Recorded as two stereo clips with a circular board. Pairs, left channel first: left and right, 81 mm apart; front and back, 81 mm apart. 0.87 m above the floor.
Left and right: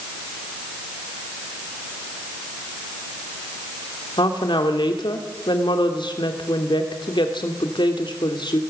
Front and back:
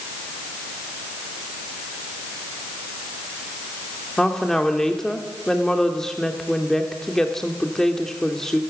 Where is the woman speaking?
85° left, 2 m.